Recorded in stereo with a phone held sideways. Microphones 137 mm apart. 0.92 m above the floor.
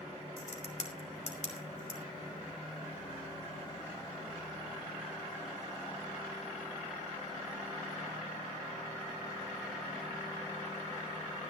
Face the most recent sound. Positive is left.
turn(degrees=55)  # may be behind; listen again after turning